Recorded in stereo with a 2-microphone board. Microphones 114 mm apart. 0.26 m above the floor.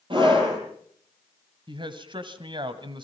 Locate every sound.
0.1 s a scream: 45° right (ahead or behind), 8.5 m
1.7 s a man speaking: 45° right (ahead or behind), 1.7 m